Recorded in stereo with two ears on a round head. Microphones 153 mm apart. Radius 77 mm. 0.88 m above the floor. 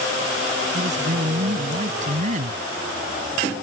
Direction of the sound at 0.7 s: 45° right (ahead or behind).